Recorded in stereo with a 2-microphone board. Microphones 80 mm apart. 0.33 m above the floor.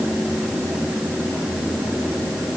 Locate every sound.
Only background noise.